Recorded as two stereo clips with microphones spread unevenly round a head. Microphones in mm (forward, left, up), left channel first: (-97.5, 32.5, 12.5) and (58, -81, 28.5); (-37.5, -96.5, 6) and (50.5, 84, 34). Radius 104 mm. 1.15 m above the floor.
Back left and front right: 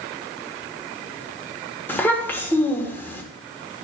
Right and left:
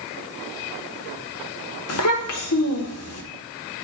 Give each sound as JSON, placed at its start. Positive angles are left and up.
{"t": 1.9, "sound": "a child speaking", "azimuth_deg": -135, "distance_m": 1.6}